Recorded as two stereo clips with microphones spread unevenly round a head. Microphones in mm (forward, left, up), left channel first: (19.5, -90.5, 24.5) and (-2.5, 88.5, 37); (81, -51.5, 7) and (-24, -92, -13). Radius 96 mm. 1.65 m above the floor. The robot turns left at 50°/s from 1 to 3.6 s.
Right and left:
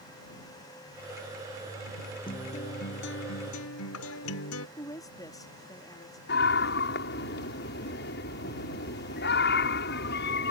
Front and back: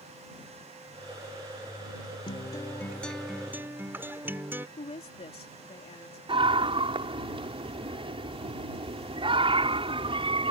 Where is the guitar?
15° right; by 4.7 s 85° right.